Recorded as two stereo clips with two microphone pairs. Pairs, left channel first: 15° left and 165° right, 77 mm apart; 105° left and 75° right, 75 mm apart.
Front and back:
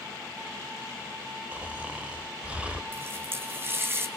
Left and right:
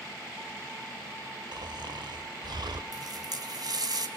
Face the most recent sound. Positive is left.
turn(degrees=-105)